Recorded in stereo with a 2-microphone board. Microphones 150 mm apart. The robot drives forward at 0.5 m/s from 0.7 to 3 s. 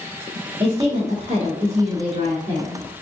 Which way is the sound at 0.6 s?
45° right (ahead or behind).